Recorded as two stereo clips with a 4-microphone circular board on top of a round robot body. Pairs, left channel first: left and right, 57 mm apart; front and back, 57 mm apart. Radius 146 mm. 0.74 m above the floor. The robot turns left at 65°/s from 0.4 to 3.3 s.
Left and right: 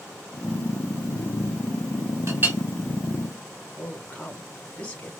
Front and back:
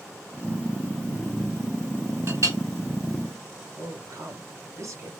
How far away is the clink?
About 2 m.